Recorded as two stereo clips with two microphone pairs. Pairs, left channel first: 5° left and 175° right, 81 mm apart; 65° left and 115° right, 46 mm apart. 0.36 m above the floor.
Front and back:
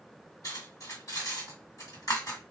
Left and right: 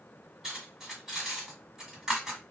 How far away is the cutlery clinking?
About 1.6 m.